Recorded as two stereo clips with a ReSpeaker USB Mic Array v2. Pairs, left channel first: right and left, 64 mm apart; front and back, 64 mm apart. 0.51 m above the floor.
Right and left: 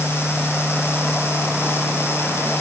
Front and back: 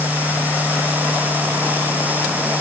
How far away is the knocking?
I don't hear knocking.